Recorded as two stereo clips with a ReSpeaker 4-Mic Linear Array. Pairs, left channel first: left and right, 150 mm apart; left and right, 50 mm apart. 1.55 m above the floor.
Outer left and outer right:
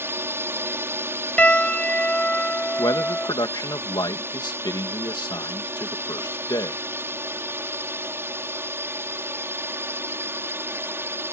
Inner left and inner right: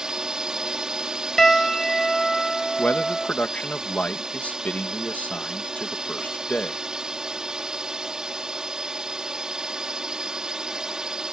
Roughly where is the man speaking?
Left.